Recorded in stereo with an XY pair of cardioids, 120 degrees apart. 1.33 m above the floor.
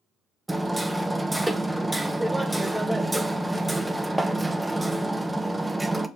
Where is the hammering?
10° right, 0.6 m.